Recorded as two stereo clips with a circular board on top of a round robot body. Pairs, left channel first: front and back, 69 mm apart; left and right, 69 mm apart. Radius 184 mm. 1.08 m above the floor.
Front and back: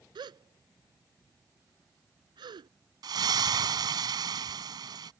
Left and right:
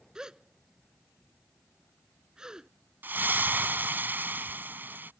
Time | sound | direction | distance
0.1 | a gasp | 170° right | ?
3.0 | a splash | 155° right | ?